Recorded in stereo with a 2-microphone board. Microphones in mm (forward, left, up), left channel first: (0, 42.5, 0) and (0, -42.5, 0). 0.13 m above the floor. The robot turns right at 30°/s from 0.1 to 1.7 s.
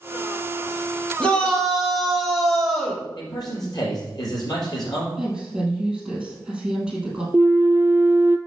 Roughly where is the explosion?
No explosion in this recording.